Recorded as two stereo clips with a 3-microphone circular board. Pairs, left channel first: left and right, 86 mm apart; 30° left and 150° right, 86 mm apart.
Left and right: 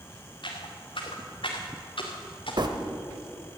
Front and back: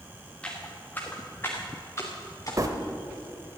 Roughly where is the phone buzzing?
Right.